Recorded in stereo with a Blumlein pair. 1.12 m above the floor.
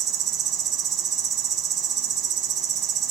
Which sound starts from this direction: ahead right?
An insect, at 0.0 s.